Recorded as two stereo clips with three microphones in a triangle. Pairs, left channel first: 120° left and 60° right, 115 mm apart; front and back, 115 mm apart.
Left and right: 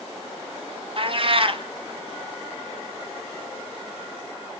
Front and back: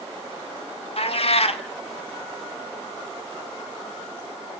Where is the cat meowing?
25° right, 1.4 m.